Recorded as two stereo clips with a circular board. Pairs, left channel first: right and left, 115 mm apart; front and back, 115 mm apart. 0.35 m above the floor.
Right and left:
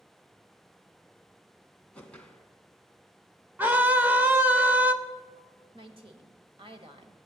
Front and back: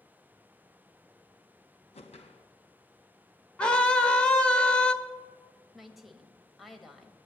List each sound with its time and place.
1.9 s a whoosh: 10° right, 1.8 m
3.6 s a scream: 55° left, 1.5 m
5.7 s a woman speaking: 90° left, 1.7 m